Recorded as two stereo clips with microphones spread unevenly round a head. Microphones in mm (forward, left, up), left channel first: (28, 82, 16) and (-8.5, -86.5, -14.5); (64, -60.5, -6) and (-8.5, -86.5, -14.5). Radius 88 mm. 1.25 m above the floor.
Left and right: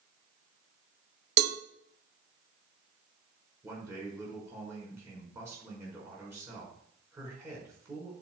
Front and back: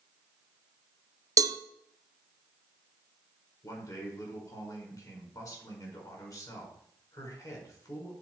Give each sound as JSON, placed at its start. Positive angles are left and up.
{"t": 1.4, "sound": "a cowbell", "azimuth_deg": -125, "distance_m": 0.7}
{"t": 3.6, "sound": "a man speaking", "azimuth_deg": -25, "distance_m": 5.0}